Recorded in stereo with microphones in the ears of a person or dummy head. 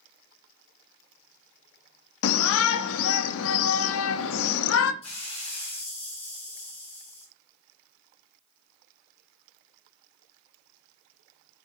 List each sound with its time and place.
2.2 s a shout: 85° left, 0.5 m
5.0 s a hiss: 30° left (ahead or behind), 1.3 m